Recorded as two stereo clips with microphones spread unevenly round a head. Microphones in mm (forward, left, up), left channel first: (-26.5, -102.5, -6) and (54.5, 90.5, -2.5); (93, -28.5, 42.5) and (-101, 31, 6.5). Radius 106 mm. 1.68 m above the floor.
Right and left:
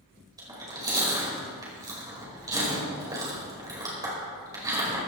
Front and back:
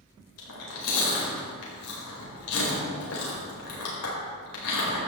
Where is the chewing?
5° right, 5 m.